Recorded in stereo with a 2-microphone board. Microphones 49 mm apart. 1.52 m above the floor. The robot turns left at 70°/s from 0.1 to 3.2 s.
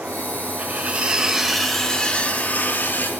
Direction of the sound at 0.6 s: 105° right.